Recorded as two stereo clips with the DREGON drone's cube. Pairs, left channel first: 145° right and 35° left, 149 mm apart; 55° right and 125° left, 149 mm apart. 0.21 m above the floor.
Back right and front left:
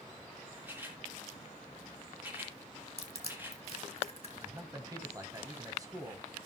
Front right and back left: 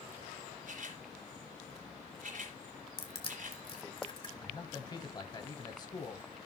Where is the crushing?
105° right, 2 m.